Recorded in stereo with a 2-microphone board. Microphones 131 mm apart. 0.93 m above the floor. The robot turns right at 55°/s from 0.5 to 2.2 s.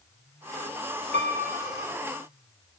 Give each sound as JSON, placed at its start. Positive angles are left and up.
{"t": 1.1, "sound": "a piano", "azimuth_deg": -110, "distance_m": 3.5}